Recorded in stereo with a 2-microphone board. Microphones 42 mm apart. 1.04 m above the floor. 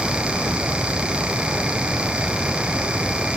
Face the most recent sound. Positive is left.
No sound to turn to.